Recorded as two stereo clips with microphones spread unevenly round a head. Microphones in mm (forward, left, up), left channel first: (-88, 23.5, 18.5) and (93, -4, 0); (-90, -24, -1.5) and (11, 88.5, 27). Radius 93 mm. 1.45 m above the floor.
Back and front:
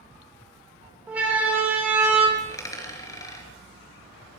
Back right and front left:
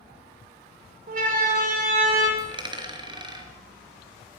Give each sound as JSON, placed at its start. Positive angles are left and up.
{"t": 1.1, "sound": "a siren", "azimuth_deg": 75, "distance_m": 6.5}
{"t": 2.4, "sound": "a dropped coin", "azimuth_deg": 100, "distance_m": 4.5}